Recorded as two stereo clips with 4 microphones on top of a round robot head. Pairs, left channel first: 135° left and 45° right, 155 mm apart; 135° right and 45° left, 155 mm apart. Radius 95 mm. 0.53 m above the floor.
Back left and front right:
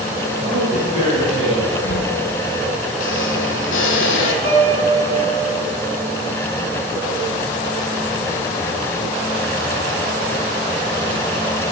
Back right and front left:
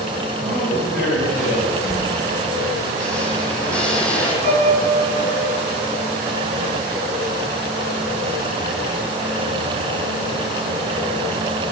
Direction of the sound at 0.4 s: 15° left.